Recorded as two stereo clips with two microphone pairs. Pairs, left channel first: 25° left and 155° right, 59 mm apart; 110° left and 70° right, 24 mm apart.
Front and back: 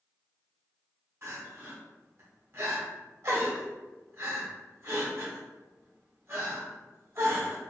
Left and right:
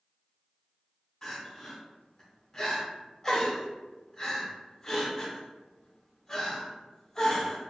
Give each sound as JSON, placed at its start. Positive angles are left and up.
{"t": 1.2, "sound": "crying", "azimuth_deg": 175, "distance_m": 0.8}